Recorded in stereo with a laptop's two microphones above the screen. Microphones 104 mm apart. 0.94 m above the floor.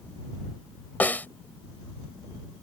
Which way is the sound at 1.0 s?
15° left (ahead or behind).